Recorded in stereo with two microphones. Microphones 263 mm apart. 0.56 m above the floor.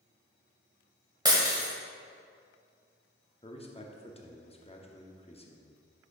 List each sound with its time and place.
1.2 s breaking glass: 15° right (ahead or behind), 1.4 m
3.4 s a man speaking: 20° left (ahead or behind), 0.8 m